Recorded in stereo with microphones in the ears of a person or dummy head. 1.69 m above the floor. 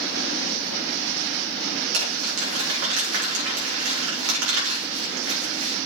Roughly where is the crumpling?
Right.